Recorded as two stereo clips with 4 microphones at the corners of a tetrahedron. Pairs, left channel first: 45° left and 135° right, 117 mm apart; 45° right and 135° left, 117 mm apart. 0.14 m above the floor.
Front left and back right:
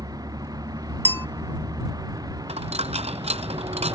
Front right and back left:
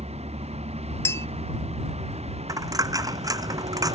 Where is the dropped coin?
165° right.